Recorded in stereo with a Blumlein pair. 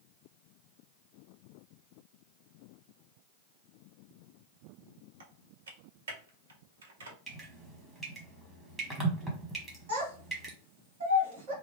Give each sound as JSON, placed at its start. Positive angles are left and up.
{"t": 5.2, "sound": "typing on a keyboard", "azimuth_deg": -65, "distance_m": 0.7}
{"t": 7.3, "sound": "dripping", "azimuth_deg": -10, "distance_m": 1.3}
{"t": 9.9, "sound": "a child speaking", "azimuth_deg": -50, "distance_m": 1.5}